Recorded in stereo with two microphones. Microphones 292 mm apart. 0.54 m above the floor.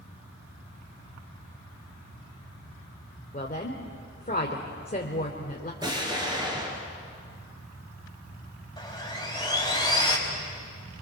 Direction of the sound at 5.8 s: 15° right (ahead or behind).